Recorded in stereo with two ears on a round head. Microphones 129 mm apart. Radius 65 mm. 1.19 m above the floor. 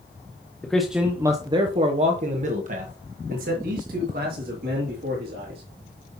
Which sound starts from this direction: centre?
A man speaking, at 0.6 s.